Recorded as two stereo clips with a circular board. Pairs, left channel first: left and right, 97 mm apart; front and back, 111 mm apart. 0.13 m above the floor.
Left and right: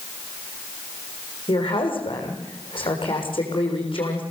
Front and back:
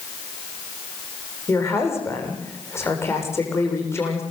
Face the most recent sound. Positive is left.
turn(degrees=65)